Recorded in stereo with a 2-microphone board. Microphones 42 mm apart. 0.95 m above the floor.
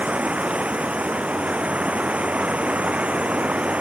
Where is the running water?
35° right (ahead or behind).